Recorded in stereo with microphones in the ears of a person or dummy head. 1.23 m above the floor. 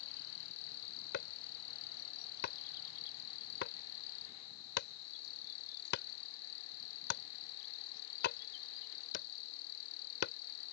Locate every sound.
0.0 s an insect: 80° left
1.1 s chopping: 60° left (ahead or behind)